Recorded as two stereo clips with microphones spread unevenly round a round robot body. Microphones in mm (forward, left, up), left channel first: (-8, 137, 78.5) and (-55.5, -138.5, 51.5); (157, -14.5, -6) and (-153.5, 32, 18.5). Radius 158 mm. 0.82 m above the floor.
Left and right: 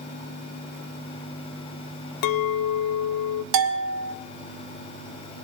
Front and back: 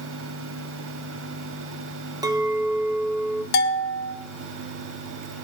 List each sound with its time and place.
2.2 s a clink: 90° left, 0.6 m
3.5 s a bell: 70° right, 1.3 m